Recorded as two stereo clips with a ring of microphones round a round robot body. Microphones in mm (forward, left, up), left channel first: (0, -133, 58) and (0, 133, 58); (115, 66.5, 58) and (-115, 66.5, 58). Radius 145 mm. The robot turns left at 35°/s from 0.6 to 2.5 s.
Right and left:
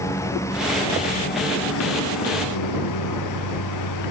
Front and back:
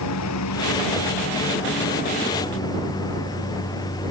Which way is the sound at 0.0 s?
10° right.